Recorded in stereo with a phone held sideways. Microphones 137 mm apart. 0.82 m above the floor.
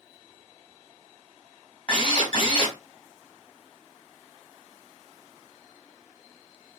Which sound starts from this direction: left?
A drill, at 1.9 s.